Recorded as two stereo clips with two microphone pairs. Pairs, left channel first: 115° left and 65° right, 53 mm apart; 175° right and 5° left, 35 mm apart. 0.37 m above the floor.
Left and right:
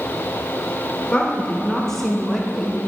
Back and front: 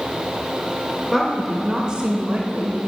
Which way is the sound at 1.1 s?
130° left.